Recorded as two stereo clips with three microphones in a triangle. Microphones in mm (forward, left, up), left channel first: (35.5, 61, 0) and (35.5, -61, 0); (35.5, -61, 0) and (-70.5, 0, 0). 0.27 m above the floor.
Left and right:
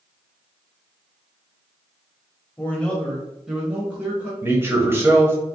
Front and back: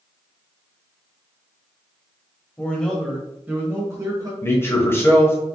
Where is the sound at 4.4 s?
55° right, 1.0 m.